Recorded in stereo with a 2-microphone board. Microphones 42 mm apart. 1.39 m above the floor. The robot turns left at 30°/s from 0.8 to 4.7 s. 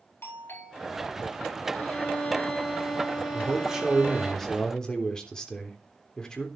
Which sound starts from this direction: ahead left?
A violin, at 1.7 s.